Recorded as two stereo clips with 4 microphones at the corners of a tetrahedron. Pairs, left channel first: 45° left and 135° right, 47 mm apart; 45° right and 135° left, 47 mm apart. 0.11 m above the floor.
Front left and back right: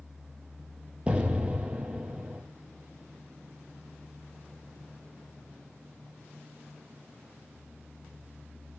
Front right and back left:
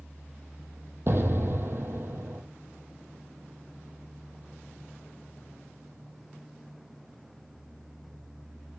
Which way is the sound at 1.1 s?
160° left.